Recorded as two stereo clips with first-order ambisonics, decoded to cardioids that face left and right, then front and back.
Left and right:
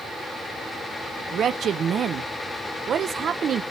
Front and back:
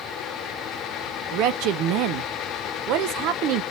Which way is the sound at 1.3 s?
150° right.